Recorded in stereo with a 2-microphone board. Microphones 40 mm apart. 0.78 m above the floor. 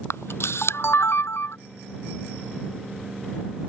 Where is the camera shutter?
85° left.